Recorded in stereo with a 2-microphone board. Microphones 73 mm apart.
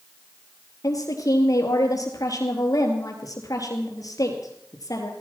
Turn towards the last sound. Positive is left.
turn(degrees=55)  # may be behind; listen again after turning